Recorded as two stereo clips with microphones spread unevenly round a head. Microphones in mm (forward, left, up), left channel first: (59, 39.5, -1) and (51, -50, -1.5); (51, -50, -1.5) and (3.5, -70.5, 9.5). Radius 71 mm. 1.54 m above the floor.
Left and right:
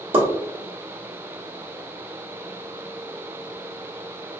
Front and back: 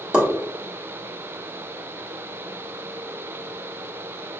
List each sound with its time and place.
0.1 s a pop: 90° right, 1.4 m